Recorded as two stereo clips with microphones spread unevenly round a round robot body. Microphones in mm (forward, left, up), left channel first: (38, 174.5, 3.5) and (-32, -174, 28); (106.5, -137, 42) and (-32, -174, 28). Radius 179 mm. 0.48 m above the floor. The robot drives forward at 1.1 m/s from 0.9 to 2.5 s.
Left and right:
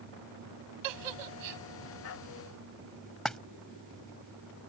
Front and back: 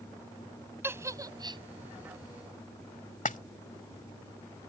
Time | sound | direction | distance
0.8 | a giggle | 90° right | ?
3.2 | a splash | 10° right | ?